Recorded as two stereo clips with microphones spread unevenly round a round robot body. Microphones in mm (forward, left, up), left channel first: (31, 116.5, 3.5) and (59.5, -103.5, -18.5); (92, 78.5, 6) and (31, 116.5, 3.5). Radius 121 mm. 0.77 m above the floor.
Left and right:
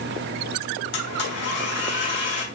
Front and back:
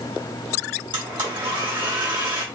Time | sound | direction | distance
0.9 | a blender | 145° left | 1.9 m